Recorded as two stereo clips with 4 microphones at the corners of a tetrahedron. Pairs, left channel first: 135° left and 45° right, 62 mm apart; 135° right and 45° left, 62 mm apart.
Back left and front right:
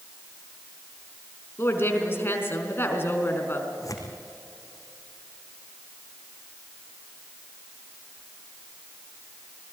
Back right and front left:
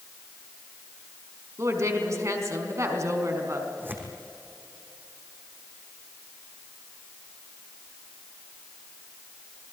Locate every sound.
1.6 s a woman speaking: 80° left, 4 m
3.8 s tearing paper: 105° left, 4 m